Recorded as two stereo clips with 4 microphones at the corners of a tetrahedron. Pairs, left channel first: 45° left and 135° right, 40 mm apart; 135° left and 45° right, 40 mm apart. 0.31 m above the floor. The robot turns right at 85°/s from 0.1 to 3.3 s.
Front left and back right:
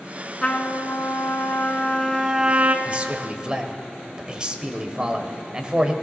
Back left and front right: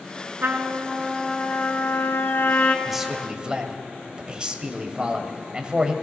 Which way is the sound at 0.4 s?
20° right.